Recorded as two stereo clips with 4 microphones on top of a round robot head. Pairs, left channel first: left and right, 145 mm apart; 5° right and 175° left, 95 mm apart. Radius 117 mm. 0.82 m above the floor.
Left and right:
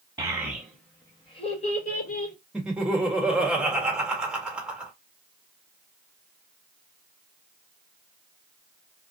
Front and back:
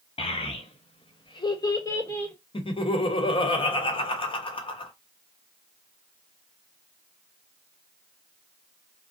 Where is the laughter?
5° right, 1.2 m.